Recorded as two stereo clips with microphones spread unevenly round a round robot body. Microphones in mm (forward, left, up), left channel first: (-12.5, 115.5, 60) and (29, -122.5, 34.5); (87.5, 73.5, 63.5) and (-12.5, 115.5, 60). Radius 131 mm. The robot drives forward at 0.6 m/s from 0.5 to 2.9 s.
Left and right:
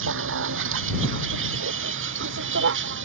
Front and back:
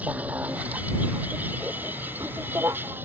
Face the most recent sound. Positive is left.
turn(degrees=-125)